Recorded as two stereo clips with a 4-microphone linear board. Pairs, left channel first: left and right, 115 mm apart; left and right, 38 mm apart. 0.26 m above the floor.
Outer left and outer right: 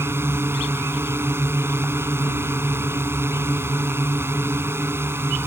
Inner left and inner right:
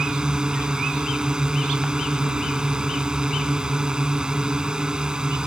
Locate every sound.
0.0 s a drone: 20° right (ahead or behind)